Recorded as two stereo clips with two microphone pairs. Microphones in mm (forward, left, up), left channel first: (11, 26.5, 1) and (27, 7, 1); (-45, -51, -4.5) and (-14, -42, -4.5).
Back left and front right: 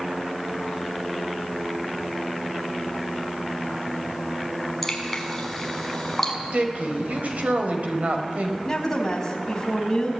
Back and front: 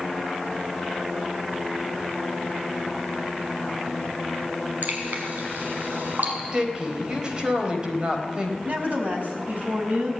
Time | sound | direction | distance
4.8 | dripping | 45° left | 6 m
6.5 | a woman speaking | 45° right | 4 m
8.7 | a woman speaking | 60° left | 5.5 m